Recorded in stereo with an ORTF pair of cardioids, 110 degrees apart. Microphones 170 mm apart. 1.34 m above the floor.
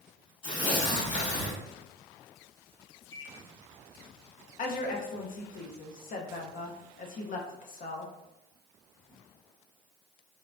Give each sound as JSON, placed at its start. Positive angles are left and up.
{"t": 0.4, "sound": "tearing paper", "azimuth_deg": 30, "distance_m": 2.0}
{"t": 3.1, "sound": "a microwave", "azimuth_deg": 20, "distance_m": 1.3}
{"t": 4.6, "sound": "a woman speaking", "azimuth_deg": 50, "distance_m": 0.9}